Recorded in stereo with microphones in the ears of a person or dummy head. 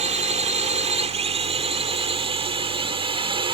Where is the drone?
40° right (ahead or behind); by 3.5 s 30° right (ahead or behind).